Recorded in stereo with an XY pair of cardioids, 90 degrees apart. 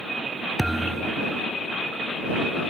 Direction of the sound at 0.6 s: 15° right.